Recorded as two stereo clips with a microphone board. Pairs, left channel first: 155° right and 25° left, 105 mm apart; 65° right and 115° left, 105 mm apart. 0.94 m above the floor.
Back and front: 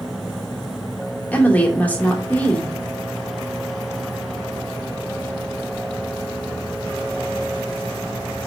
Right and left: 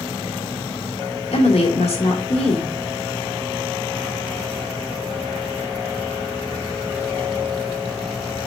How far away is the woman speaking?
About 2 m.